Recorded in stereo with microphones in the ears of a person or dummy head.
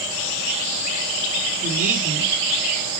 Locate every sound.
1.6 s a woman speaking: 45° right (ahead or behind), 3.5 m